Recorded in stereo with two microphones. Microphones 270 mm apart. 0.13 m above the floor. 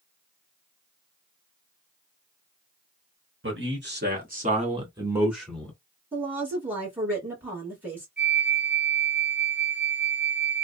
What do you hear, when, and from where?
3.4 s a man speaking: 45° right (ahead or behind), 1.5 m; by 5.7 s 5° left (ahead or behind), 1.2 m
6.1 s a woman speaking: 5° right (ahead or behind), 1.7 m
8.2 s a flute: 40° right (ahead or behind), 1.6 m